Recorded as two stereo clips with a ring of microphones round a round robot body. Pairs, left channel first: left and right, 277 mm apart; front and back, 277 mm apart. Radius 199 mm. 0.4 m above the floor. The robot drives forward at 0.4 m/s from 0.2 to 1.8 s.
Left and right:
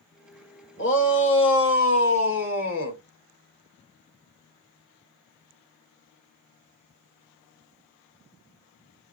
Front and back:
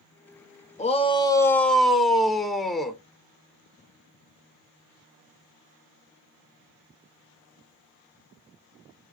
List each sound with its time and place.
0.8 s a shout: 60° left, 1.1 m; by 3.0 s 90° left, 1.0 m